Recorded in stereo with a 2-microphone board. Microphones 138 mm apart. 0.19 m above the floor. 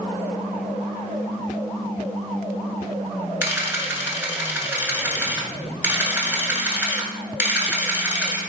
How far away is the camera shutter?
About 0.8 m.